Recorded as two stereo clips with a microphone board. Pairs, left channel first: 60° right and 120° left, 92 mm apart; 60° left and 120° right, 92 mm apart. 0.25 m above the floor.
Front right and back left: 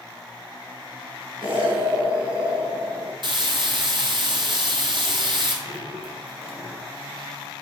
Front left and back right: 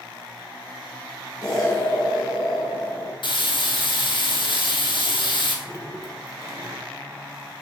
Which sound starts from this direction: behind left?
Dripping, at 5.7 s.